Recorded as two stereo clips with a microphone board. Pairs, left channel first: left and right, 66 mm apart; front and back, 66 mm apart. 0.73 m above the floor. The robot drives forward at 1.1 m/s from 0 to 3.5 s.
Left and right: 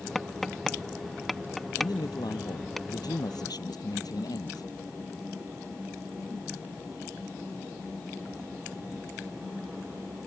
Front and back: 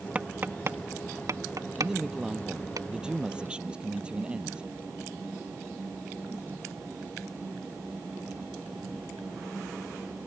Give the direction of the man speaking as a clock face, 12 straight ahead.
9 o'clock.